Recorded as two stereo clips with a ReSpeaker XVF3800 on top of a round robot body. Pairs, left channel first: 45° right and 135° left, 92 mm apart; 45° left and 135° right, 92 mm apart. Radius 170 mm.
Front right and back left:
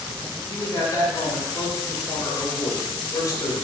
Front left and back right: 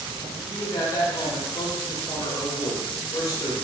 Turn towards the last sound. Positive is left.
turn(degrees=0)